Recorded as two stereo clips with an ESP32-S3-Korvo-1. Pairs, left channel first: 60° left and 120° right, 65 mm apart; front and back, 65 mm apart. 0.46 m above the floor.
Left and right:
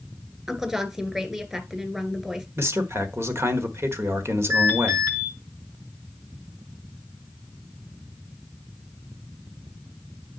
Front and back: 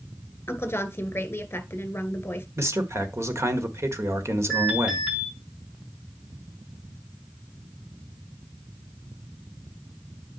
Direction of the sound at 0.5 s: 45° right.